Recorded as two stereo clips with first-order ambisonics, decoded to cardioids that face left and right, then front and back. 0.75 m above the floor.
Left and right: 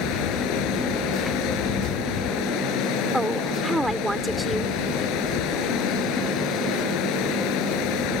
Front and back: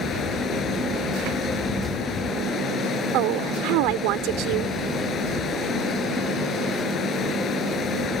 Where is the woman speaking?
175° right.